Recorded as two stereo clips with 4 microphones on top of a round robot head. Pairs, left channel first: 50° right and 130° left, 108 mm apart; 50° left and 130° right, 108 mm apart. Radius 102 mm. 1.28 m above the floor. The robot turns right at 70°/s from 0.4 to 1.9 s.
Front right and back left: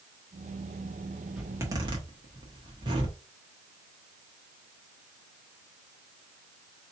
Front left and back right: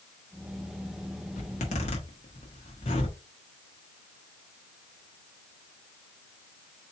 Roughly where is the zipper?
Ahead left.